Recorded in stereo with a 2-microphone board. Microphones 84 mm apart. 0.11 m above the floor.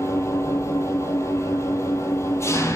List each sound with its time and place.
0.0 s an engine running: 30° left (ahead or behind), 1.1 m